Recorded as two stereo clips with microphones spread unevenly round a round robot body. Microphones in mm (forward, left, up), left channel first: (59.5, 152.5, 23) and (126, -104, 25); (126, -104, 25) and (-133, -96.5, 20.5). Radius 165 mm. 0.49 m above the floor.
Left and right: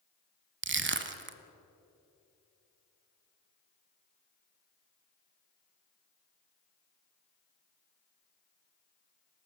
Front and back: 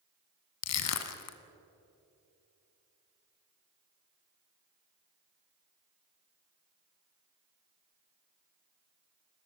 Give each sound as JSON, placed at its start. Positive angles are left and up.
{"t": 0.6, "sound": "crushing", "azimuth_deg": -25, "distance_m": 1.5}